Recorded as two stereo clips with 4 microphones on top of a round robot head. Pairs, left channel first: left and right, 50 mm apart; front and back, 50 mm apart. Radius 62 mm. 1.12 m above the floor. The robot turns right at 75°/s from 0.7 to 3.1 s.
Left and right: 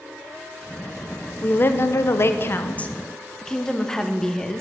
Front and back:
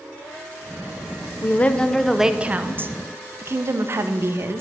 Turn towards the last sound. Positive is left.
turn(degrees=165)